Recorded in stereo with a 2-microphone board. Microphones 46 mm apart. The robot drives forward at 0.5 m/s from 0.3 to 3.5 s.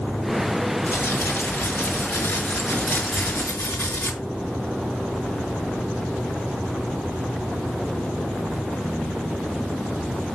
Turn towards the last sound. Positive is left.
turn(degrees=70)  # may be behind; listen again after turning